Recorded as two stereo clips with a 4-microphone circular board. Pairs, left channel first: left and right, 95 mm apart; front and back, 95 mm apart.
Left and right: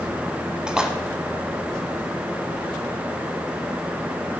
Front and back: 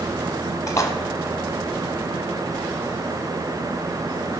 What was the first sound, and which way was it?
A splash, 15° right.